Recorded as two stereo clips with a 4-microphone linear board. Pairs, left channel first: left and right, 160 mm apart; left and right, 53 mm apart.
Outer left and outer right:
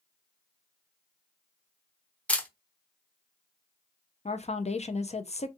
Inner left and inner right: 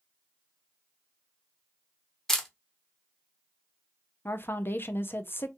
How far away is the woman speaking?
About 0.5 m.